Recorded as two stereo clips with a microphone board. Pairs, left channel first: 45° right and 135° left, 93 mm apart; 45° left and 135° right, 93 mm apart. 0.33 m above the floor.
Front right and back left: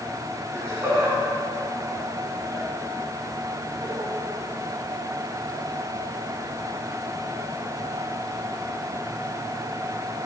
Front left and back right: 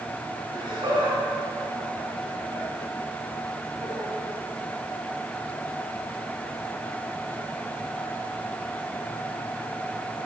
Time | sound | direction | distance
0.5 | laughter | 165° right | 4 m